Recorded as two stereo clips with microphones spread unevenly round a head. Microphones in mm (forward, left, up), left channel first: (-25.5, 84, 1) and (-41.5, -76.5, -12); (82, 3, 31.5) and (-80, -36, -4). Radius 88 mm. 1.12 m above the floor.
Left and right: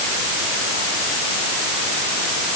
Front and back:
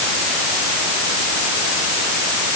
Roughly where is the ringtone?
No ringtone in this recording.